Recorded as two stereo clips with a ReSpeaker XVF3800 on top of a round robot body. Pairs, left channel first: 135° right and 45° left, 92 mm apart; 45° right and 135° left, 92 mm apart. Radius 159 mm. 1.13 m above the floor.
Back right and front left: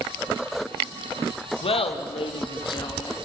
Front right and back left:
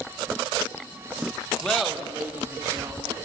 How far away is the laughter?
About 1.8 m.